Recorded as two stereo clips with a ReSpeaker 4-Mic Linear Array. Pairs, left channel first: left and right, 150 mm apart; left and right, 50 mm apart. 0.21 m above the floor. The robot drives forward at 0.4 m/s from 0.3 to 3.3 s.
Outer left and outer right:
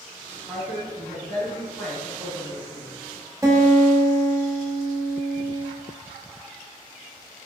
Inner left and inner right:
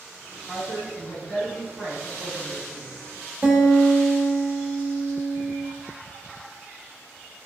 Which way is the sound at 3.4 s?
25° right (ahead or behind).